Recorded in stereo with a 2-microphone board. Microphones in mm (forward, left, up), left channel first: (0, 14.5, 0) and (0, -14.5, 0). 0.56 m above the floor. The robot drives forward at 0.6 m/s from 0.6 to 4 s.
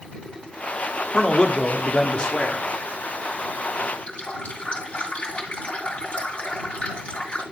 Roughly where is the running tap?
Left.